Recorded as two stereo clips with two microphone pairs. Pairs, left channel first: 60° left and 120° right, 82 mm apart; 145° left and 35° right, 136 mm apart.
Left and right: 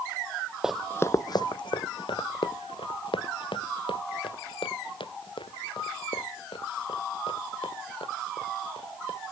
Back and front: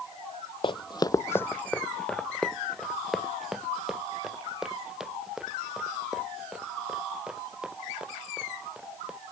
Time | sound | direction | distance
0.6 | running footsteps | 165° left | ?